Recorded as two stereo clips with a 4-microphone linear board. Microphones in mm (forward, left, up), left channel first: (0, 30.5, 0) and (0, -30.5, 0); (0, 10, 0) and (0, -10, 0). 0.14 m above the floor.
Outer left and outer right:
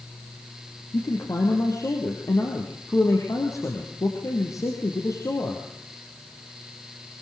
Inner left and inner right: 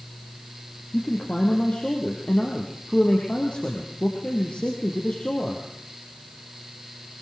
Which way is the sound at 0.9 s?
60° left (ahead or behind).